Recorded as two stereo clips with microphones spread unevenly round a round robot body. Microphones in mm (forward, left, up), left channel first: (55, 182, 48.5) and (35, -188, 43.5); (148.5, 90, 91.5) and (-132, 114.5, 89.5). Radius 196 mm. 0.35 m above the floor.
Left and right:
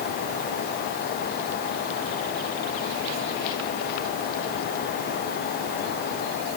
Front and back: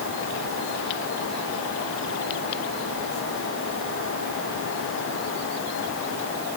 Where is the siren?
I don't hear a siren.